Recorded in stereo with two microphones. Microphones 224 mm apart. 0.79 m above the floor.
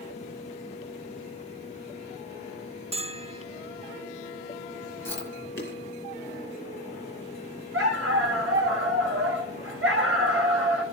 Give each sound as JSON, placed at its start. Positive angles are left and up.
{"t": 2.9, "sound": "a bell", "side_deg": -25, "distance_m": 0.5}
{"t": 5.0, "sound": "chewing", "side_deg": 55, "distance_m": 6.0}
{"t": 7.7, "sound": "a dog barking", "side_deg": -70, "distance_m": 2.5}